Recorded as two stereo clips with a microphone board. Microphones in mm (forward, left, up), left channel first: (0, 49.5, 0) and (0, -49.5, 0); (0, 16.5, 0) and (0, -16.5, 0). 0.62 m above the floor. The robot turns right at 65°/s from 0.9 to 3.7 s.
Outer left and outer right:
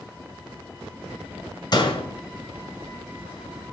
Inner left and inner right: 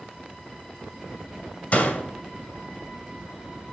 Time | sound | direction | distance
1.7 | a door slam | 45° left (ahead or behind) | 2 m